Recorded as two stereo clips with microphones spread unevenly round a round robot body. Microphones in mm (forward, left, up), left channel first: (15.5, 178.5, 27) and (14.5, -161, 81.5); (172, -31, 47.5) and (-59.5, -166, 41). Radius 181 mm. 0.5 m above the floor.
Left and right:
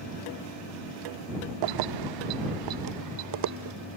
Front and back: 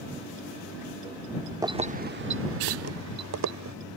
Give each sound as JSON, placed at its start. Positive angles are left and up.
{"t": 1.6, "sound": "keys jangling", "azimuth_deg": -75}